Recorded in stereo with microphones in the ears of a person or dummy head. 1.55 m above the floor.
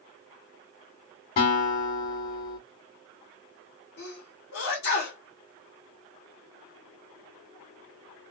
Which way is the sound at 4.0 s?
70° left (ahead or behind).